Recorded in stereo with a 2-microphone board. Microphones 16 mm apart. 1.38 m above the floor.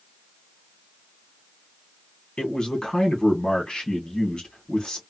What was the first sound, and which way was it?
A man speaking, 60° left (ahead or behind).